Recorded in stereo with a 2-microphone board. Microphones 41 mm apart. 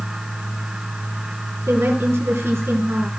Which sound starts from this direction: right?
A woman speaking, at 1.7 s.